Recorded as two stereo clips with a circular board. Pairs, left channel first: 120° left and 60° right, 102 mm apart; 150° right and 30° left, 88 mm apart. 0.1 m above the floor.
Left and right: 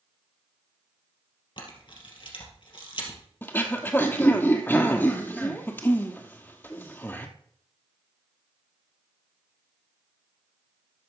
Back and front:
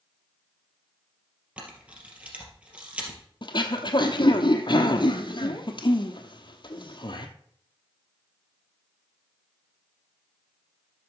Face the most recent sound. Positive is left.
turn(degrees=-175)